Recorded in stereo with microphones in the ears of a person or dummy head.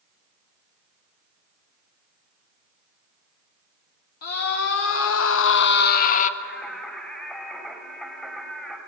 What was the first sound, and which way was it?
A scream, 55° left (ahead or behind).